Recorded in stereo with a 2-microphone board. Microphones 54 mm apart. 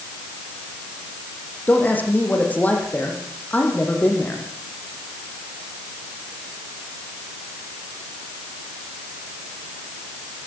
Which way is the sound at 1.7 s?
30° left (ahead or behind).